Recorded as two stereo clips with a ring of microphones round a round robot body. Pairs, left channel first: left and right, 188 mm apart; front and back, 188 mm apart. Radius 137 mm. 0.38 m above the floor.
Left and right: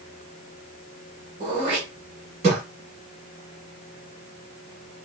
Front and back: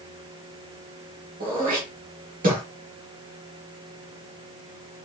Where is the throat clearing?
140° right, 1.2 m.